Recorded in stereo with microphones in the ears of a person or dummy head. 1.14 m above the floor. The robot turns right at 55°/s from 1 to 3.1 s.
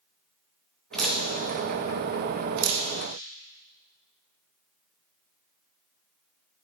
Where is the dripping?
5° left (ahead or behind), 1.3 m; by 2.9 s 75° right (ahead or behind), 1.3 m.